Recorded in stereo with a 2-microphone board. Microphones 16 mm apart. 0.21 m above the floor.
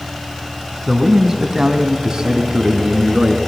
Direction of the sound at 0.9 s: 20° right (ahead or behind).